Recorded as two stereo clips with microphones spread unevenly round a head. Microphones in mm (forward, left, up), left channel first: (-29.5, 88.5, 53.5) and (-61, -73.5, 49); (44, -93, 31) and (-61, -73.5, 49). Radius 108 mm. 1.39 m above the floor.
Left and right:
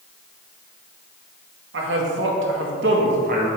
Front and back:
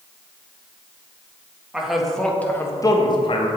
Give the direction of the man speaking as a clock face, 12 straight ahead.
4 o'clock.